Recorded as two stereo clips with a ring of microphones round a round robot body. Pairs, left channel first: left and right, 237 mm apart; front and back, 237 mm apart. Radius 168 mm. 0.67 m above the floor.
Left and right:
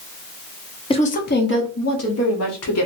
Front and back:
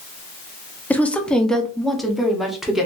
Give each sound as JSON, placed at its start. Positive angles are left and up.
{"t": 0.9, "sound": "a woman speaking", "azimuth_deg": 75, "distance_m": 0.7}